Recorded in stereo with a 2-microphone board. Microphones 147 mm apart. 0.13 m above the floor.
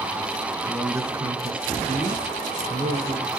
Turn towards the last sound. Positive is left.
turn(degrees=-60)  # may be behind; listen again after turning